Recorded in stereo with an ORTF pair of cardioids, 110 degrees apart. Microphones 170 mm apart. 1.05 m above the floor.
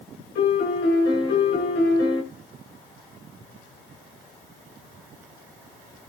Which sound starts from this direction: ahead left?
A piano, at 0.3 s.